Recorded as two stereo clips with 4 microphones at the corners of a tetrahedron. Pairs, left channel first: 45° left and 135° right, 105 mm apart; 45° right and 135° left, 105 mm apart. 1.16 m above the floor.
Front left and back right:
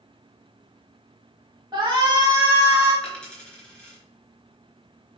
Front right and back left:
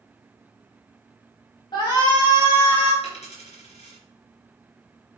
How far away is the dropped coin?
About 3.5 m.